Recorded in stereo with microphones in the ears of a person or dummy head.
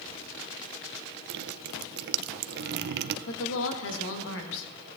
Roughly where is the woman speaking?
Left.